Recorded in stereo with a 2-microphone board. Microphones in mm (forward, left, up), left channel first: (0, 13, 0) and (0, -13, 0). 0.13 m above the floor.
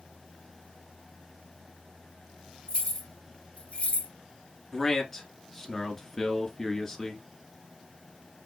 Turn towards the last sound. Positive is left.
turn(degrees=10)  # may be behind; listen again after turning